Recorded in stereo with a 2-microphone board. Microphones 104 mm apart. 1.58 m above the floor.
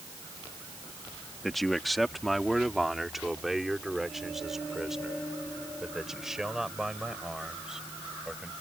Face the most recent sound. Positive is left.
turn(degrees=-5)  # may be behind; listen again after turning